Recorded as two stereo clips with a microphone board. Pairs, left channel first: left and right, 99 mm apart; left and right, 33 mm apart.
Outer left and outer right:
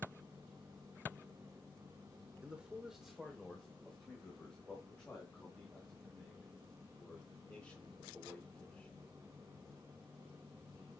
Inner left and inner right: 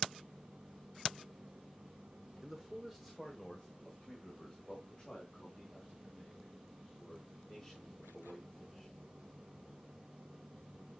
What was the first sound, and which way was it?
A man speaking, 15° right (ahead or behind).